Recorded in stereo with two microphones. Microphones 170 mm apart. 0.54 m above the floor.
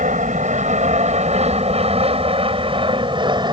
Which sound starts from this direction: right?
An aircraft, at 0.0 s.